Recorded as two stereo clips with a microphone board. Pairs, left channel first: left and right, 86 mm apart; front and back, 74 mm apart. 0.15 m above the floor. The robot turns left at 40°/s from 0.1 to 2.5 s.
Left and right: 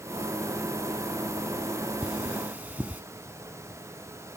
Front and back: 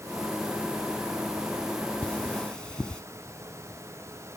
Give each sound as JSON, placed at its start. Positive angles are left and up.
{"t": 2.0, "sound": "cutlery clinking", "azimuth_deg": -40, "distance_m": 0.7}